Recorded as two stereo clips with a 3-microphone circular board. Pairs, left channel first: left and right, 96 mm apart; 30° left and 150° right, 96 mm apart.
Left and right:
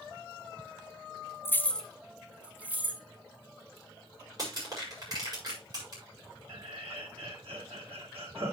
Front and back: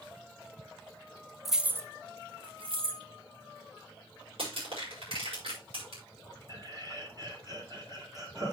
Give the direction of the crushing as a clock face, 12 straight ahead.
5 o'clock.